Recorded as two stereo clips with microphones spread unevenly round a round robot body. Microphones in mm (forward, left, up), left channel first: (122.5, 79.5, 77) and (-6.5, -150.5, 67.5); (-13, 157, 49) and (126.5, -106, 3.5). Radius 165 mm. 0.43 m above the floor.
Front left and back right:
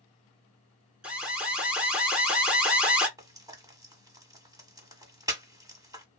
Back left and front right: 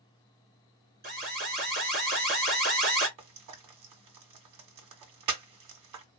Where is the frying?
45° right, 1.4 m.